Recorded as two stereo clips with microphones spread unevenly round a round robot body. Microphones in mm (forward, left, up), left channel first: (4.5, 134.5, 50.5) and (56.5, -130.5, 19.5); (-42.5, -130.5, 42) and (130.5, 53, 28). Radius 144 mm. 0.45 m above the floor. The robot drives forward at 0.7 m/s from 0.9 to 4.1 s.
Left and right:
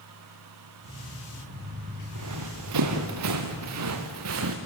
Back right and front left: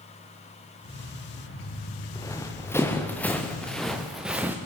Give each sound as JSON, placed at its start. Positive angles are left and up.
{"t": 2.1, "sound": "running footsteps", "azimuth_deg": -55, "distance_m": 4.0}